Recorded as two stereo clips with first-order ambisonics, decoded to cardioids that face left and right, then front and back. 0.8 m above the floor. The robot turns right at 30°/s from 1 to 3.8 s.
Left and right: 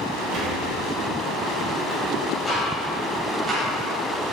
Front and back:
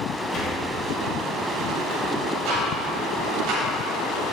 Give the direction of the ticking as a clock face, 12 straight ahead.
6 o'clock.